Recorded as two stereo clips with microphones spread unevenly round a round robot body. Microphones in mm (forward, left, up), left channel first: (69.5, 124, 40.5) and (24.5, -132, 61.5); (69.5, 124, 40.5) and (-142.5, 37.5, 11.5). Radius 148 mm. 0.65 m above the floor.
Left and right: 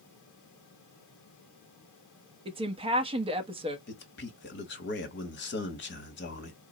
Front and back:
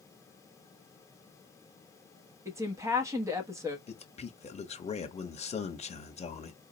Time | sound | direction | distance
2.5 | a woman speaking | 140° right | 0.7 m
3.9 | a man speaking | 80° left | 1.1 m